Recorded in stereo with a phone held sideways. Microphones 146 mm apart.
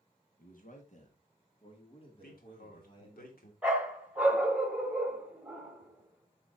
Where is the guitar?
No guitar in this recording.